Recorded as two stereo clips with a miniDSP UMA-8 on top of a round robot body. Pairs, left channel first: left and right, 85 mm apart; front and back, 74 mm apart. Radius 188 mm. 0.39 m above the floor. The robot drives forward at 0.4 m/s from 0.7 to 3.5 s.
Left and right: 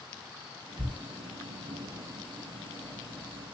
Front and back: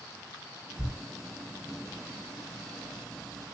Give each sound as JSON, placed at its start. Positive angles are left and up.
{"t": 0.8, "sound": "a thud", "azimuth_deg": -75, "distance_m": 3.5}